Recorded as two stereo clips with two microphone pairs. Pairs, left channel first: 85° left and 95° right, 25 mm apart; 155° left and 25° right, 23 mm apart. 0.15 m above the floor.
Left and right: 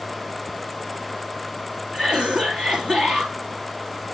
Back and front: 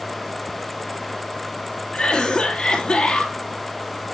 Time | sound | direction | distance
1.9 | a cough | 145° right | 3 m